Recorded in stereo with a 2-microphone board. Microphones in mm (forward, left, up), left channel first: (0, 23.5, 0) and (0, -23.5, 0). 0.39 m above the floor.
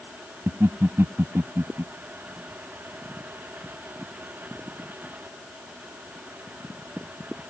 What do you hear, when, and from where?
0.5 s laughter: 70° right (ahead or behind)